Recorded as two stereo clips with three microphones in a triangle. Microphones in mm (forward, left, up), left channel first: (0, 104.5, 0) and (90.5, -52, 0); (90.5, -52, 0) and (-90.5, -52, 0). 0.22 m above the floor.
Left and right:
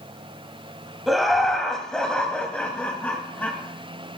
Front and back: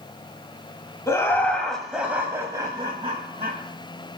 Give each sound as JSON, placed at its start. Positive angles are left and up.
{"t": 1.1, "sound": "laughter", "azimuth_deg": 25, "distance_m": 1.4}